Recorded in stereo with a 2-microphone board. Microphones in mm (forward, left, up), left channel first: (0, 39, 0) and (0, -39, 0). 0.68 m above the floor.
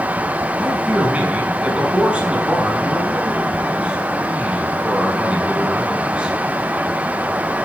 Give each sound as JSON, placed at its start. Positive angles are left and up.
{"t": 0.6, "sound": "a man speaking", "side_deg": -15, "distance_m": 5.5}